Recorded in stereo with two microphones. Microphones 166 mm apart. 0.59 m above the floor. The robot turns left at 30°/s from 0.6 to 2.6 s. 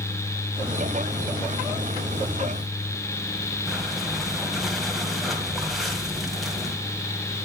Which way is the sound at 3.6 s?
Centre (ahead or behind).